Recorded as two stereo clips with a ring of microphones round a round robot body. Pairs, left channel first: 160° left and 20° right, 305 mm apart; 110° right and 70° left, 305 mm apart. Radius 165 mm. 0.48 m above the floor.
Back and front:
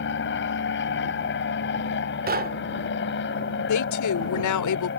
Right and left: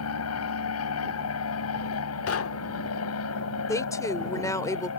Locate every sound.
0.0 s an aircraft: 150° right
2.3 s knocking: 80° right
3.7 s a woman speaking: 170° left